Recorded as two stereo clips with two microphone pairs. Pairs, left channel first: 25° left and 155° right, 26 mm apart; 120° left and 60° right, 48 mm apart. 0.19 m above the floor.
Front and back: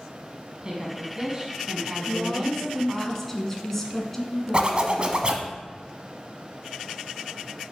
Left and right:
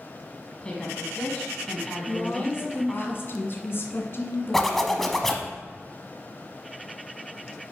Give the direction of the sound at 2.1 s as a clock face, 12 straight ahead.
9 o'clock.